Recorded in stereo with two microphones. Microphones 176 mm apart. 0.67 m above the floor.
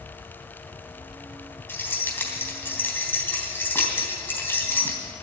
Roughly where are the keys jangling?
Centre.